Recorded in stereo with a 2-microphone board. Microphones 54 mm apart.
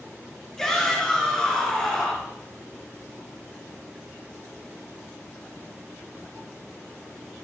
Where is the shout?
10° left (ahead or behind), 4.5 m.